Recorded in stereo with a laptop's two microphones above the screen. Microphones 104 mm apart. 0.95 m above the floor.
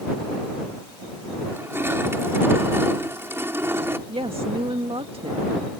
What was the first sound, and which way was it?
Crushing, 25° right (ahead or behind).